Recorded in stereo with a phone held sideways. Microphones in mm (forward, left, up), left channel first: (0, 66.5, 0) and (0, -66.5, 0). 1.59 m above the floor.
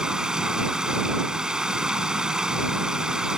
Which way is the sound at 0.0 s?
5° right (ahead or behind).